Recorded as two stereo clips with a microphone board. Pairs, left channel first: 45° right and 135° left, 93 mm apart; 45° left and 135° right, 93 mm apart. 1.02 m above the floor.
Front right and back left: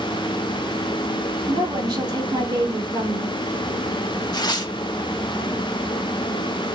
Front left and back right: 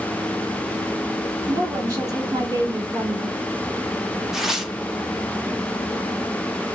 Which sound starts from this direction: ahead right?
Tearing paper, at 4.3 s.